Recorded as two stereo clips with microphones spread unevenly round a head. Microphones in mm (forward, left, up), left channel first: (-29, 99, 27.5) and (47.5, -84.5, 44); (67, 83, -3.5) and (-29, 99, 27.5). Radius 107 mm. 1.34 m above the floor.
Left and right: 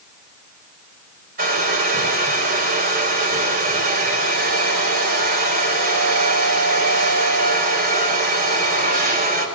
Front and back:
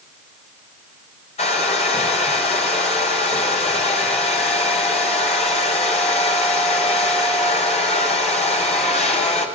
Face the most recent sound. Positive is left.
turn(degrees=-20)